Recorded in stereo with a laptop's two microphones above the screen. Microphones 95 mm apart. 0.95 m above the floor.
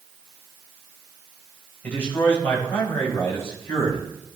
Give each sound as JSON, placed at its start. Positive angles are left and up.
{"t": 1.8, "sound": "a man speaking", "side_deg": 15, "distance_m": 4.5}